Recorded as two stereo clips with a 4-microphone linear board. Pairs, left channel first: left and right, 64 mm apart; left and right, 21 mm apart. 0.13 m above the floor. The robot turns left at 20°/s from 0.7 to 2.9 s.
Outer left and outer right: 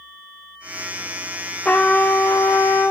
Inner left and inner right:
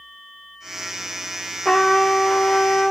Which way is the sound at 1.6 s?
20° left (ahead or behind).